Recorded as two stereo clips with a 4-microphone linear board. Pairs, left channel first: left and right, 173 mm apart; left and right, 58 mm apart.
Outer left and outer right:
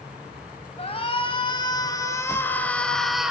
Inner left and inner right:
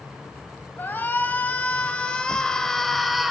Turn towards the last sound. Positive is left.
turn(degrees=-5)  # may be behind; listen again after turning